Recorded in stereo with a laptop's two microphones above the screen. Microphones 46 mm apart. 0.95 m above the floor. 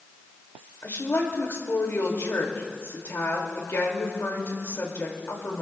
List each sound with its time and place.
0.8 s a woman speaking: 70° left (ahead or behind), 2 m